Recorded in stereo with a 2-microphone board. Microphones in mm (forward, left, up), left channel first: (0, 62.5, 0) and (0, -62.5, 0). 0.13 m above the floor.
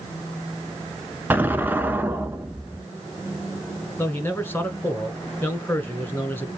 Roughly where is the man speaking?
Centre.